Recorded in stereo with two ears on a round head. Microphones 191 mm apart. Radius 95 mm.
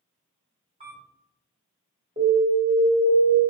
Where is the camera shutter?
25° right (ahead or behind), 1.3 m.